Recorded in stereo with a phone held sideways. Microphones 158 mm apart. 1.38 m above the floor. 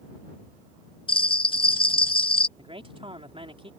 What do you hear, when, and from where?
1.1 s a bell: 35° left (ahead or behind)
2.6 s a man speaking: 35° right (ahead or behind)